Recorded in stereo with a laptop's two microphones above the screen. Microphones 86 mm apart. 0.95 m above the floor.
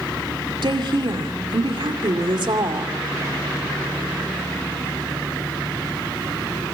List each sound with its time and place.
0.6 s a woman speaking: 65° right (ahead or behind), 2.5 m